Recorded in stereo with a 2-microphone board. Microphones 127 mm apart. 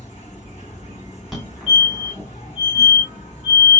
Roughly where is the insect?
Left.